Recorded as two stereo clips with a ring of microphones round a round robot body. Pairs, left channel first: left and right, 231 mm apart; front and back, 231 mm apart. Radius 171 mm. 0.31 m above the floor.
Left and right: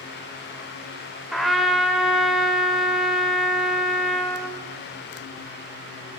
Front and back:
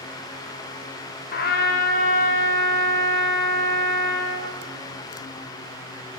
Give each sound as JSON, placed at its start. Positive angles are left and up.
{"t": 1.3, "sound": "a trumpet", "azimuth_deg": 0, "distance_m": 0.8}